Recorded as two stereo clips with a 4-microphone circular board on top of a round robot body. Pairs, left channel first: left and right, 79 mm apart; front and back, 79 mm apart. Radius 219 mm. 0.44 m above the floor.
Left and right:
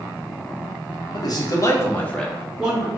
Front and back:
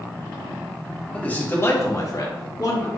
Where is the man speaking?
70° left, 1.3 m; by 2.9 s 20° right, 1.2 m.